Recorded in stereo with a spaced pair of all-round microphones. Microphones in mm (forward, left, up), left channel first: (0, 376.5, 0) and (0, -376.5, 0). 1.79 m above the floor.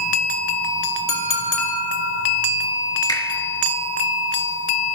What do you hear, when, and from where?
1.1 s a clink: 55° left (ahead or behind), 2.5 m
3.1 s a finger snap: 5° left (ahead or behind), 3.5 m